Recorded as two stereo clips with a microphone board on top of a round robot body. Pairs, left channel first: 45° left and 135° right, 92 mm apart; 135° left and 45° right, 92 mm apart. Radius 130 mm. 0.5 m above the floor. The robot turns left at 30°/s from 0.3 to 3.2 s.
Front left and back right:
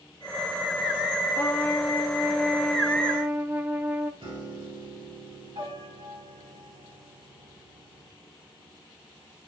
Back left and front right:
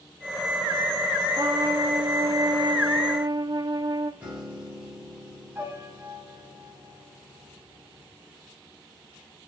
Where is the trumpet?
15° right, 0.9 m; by 4.1 s 70° right, 0.9 m.